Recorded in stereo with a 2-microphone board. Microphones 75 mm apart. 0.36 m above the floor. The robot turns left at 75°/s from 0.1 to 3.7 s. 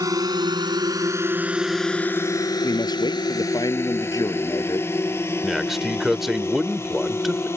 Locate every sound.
0.0 s a drone: 55° right (ahead or behind); by 7.6 s 35° left (ahead or behind)
2.6 s a man speaking: 135° left; by 4.9 s 55° left
5.4 s a man speaking: 5° right (ahead or behind)